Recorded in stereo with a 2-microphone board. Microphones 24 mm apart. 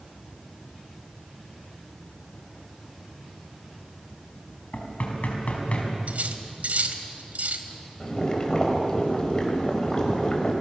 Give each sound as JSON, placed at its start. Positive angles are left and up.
{"t": 4.7, "sound": "knocking", "side_deg": 55, "distance_m": 4.5}
{"t": 6.1, "sound": "cutlery clinking", "side_deg": -80, "distance_m": 1.9}
{"t": 8.0, "sound": "boiling", "side_deg": 35, "distance_m": 4.0}